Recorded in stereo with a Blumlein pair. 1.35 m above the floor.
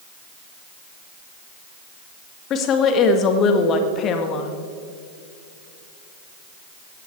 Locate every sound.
2.5 s a woman speaking: 30° left, 1.9 m